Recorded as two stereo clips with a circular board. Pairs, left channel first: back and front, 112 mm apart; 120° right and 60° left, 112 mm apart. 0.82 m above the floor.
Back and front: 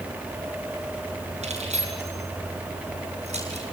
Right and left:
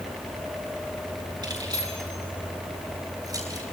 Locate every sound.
1.4 s keys jangling: 10° left, 9.5 m; by 3.6 s 5° left, 10.5 m